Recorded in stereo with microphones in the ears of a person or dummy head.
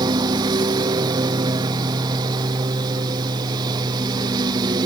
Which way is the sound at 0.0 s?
20° right (ahead or behind).